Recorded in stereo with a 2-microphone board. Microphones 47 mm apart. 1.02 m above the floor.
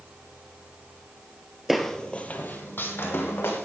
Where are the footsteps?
5° right (ahead or behind), 1.1 m; by 3.7 s 60° left (ahead or behind), 3 m.